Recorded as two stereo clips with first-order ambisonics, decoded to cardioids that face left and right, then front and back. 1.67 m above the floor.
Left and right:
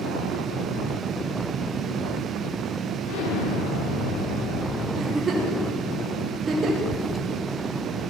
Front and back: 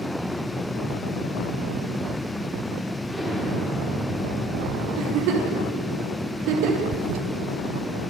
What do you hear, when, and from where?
3.1 s an explosion: 90° left, 4 m
5.0 s a giggle: 160° right, 4.5 m
6.9 s a toilet flushing: 175° left, 1.1 m